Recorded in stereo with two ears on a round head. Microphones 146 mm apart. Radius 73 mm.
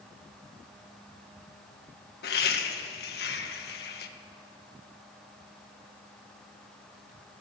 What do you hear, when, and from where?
2.2 s laughter: 65° left (ahead or behind), 1.4 m